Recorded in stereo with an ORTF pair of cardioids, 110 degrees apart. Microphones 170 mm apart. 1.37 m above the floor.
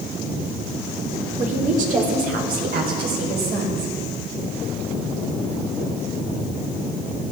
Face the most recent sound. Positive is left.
turn(degrees=-70)